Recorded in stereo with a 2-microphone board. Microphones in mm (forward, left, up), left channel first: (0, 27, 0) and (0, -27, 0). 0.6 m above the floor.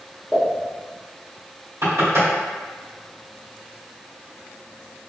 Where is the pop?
20° right (ahead or behind), 1.3 m.